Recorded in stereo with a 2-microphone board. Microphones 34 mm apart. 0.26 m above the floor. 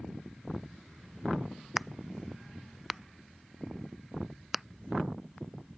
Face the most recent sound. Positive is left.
turn(degrees=-10)  # may be behind; listen again after turning